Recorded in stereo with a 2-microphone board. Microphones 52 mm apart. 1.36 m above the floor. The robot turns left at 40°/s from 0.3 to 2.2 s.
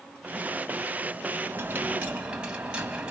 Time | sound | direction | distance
1.4 | a dropped coin | 125° right | 2 m